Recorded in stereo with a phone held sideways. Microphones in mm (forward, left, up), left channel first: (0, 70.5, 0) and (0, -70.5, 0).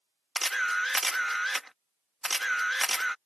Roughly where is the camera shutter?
Centre.